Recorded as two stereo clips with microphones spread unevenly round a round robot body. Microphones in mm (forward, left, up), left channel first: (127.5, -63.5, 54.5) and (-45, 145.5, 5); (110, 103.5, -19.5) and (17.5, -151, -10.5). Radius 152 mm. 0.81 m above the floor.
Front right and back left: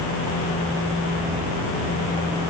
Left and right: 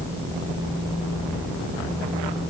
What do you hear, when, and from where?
Only background noise.